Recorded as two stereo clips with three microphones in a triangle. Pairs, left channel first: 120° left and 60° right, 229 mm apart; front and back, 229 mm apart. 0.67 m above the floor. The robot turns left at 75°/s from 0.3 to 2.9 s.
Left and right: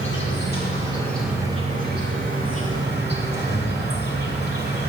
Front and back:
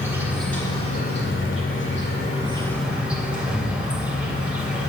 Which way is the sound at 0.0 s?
100° left.